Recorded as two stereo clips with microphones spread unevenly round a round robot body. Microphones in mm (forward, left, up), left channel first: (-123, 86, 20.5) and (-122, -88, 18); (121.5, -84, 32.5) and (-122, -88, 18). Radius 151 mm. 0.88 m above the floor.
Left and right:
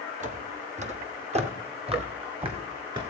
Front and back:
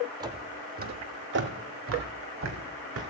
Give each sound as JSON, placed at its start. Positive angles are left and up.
{"t": 0.2, "sound": "footsteps", "azimuth_deg": -105, "distance_m": 1.1}